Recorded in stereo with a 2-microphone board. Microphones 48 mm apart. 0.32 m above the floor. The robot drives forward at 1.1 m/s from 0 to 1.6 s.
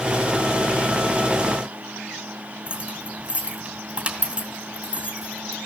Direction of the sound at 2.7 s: 20° right (ahead or behind).